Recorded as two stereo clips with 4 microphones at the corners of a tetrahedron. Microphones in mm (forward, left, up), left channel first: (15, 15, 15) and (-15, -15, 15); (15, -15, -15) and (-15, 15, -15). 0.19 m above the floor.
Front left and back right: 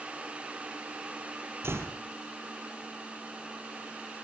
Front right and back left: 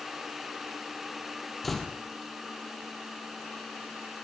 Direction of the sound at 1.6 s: 130° right.